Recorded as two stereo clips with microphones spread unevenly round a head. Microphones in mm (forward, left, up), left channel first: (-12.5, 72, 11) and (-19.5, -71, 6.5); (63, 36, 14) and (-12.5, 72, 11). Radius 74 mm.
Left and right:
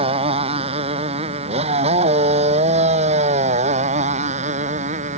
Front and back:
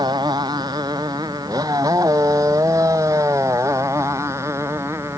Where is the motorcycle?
140° right; by 5.2 s 130° right.